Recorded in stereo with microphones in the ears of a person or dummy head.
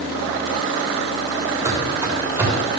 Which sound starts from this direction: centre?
Running footsteps, at 1.6 s.